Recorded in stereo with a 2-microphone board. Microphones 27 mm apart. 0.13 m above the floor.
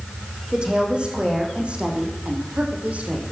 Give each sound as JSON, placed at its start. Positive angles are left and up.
{"t": 0.5, "sound": "a woman speaking", "side_deg": -35, "distance_m": 5.5}